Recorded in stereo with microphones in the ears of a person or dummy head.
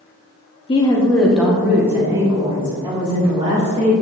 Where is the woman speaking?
25° left (ahead or behind), 0.8 m; by 3.9 s 25° right (ahead or behind), 2.5 m.